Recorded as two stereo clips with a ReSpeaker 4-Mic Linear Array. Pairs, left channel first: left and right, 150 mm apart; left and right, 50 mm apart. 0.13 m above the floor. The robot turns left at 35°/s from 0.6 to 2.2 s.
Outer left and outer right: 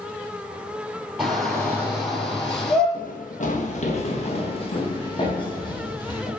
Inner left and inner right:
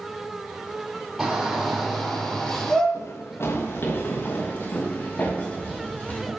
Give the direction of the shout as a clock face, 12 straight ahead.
6 o'clock.